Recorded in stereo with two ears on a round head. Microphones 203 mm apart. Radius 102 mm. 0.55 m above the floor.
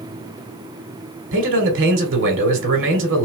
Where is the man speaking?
60° right (ahead or behind), 2 m.